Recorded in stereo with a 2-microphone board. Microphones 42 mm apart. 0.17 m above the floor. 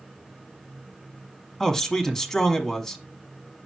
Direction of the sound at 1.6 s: 10° left (ahead or behind).